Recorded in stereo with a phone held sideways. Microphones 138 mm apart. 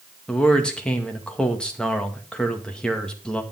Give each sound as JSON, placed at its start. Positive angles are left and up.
{"t": 0.3, "sound": "a man speaking", "side_deg": 5, "distance_m": 1.9}